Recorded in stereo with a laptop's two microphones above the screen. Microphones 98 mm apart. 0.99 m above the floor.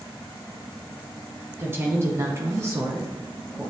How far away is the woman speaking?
About 0.9 m.